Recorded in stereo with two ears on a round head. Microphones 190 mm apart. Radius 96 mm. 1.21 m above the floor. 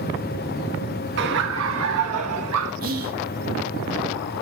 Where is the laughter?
55° right (ahead or behind), 1.4 m; by 2.7 s 70° right (ahead or behind), 1.5 m.